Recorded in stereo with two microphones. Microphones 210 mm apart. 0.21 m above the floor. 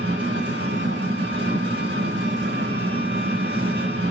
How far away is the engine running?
About 3 m.